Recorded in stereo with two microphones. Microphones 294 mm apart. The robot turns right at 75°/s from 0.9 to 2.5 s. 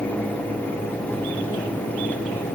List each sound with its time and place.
Only background noise.